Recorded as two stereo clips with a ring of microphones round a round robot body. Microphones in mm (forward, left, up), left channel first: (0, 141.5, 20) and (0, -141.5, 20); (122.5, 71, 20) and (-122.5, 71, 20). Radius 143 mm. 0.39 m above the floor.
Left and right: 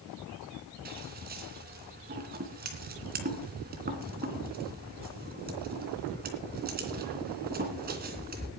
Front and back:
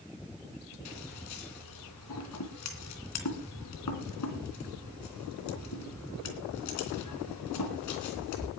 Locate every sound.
0.8 s scissors: 30° right, 3 m